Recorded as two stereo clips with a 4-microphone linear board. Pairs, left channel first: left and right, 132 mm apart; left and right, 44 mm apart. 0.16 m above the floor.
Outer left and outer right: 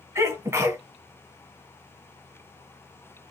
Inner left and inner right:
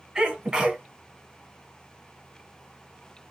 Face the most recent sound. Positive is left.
turn(degrees=-20)  # may be behind; listen again after turning